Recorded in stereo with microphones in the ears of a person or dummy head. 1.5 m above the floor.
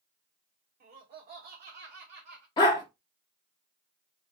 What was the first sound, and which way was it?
Laughter, 40° right (ahead or behind).